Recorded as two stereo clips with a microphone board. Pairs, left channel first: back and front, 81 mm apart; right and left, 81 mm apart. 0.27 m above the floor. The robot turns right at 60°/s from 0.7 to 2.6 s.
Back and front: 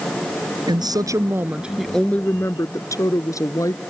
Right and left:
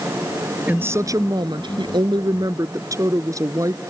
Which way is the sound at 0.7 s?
20° left.